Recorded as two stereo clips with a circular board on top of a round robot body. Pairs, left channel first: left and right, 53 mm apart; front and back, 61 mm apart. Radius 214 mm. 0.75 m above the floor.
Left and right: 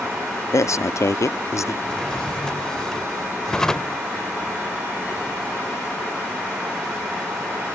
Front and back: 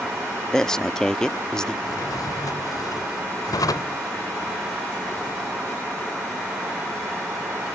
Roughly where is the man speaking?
Left.